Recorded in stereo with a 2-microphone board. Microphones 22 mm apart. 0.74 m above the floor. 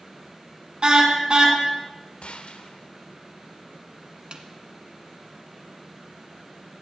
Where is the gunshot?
60° left (ahead or behind), 1.1 m.